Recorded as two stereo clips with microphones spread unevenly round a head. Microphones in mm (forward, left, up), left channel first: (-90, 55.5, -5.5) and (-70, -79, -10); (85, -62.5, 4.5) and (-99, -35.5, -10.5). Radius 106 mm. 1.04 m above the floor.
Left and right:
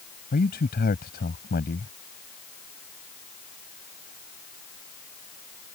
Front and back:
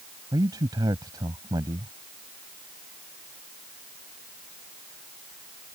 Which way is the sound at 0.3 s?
95° left.